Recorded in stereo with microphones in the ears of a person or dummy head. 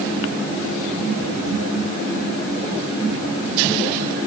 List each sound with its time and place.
Only background noise.